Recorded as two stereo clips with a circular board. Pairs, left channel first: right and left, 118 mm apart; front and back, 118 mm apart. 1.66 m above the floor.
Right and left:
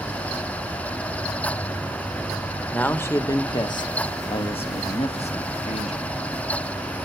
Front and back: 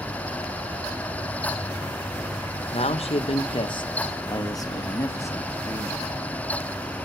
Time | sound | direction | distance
2.7 | a man speaking | 15° right | 1.4 m